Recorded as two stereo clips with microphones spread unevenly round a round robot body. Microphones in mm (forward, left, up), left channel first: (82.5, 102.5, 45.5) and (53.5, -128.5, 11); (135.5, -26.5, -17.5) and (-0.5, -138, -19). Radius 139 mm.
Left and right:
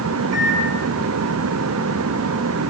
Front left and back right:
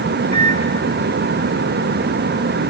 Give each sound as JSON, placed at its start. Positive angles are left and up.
{"t": 0.3, "sound": "a microwave", "azimuth_deg": -85, "distance_m": 5.5}